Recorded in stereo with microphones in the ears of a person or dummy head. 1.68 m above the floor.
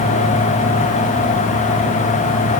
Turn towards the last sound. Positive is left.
No sound to turn to.